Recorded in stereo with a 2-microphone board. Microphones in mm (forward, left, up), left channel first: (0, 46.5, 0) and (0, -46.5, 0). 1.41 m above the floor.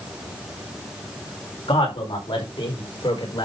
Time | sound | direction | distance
1.7 | a man speaking | 75° left (ahead or behind) | 4.5 m